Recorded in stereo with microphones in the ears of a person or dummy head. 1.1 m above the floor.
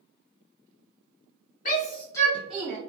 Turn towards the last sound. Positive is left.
turn(degrees=-15)  # may be behind; listen again after turning